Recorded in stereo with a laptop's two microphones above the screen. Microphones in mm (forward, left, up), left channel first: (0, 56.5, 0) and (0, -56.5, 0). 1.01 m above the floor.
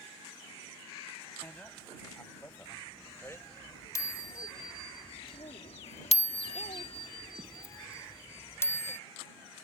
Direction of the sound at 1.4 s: 15° left (ahead or behind).